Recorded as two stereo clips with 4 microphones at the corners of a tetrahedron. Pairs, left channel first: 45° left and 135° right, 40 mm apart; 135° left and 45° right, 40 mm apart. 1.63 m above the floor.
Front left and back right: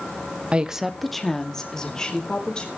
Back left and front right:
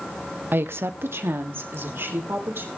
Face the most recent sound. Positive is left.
turn(degrees=-25)